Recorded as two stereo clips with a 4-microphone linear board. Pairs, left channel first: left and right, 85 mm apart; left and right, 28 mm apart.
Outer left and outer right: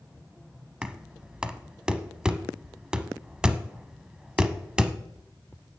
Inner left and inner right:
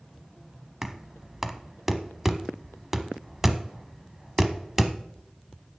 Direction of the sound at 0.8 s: 10° right (ahead or behind).